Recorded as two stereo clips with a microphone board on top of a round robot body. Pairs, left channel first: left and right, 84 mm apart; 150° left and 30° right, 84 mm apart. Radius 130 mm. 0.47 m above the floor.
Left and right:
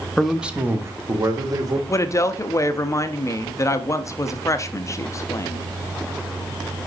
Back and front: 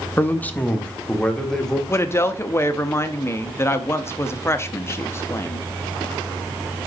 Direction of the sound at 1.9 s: 110° left.